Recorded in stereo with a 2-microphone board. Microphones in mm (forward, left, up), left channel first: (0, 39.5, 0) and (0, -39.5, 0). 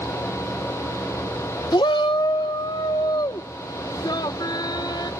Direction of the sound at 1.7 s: 65° left (ahead or behind).